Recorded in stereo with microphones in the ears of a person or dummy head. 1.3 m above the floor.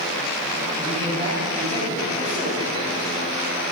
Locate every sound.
0.8 s a man speaking: 15° left (ahead or behind), 4.5 m